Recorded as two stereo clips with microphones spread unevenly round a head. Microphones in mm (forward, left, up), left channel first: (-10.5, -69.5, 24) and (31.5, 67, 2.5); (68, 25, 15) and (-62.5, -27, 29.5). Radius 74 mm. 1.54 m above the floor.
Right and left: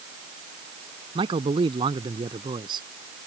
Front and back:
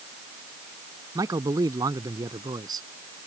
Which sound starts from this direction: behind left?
A man speaking, at 1.1 s.